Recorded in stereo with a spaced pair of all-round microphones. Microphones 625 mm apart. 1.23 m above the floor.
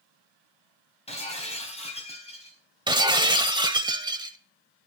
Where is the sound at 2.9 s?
10° right (ahead or behind), 1.0 m.